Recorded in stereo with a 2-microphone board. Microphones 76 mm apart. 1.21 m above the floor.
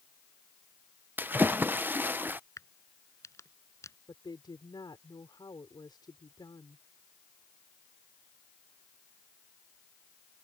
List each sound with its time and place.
1.2 s a splash: 30° right (ahead or behind)
2.6 s a crack: 45° left (ahead or behind)
4.1 s a woman speaking: 85° left